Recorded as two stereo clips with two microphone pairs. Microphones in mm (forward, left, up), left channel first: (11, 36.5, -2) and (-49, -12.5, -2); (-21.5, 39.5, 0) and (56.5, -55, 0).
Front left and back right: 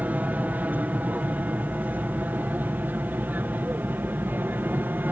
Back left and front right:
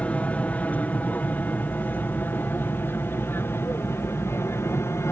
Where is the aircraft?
170° right; by 5.1 s straight behind.